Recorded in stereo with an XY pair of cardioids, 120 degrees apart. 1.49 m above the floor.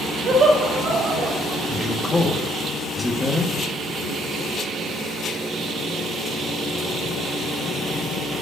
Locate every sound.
0.2 s laughter: 55° right, 3 m
1.7 s a man speaking: 15° left, 1.4 m